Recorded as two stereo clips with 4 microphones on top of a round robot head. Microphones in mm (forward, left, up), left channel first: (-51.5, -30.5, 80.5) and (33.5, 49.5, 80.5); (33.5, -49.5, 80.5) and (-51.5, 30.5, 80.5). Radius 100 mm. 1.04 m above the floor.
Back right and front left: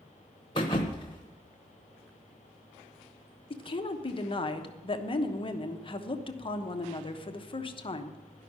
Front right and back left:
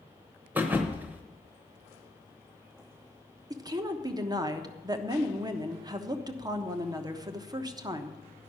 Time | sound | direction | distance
0.6 | a thud | 155° right | 0.8 m
3.5 | a woman speaking | 170° right | 1.2 m